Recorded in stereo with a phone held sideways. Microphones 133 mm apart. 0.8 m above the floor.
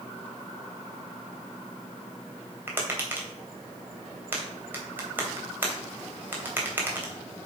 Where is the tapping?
15° right (ahead or behind), 2.5 m.